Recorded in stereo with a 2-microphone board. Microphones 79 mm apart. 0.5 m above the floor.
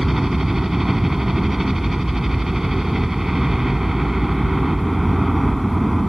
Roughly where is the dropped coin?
I don't hear a dropped coin.